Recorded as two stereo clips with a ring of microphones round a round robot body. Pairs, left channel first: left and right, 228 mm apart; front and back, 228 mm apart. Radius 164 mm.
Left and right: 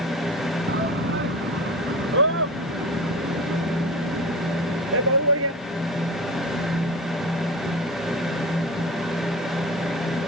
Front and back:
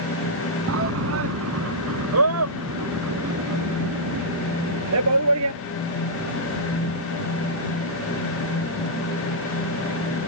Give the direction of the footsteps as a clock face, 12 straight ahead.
I don't hear footsteps.